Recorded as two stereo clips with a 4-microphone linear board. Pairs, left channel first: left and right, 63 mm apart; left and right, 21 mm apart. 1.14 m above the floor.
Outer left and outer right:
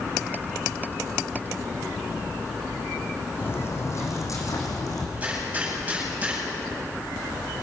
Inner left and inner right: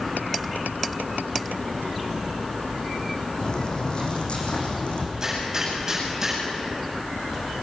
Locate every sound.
3.4 s footsteps: 35° left (ahead or behind), 3.5 m; by 5.1 s 70° left (ahead or behind), 4.5 m
5.2 s a gunshot: 20° right (ahead or behind), 8 m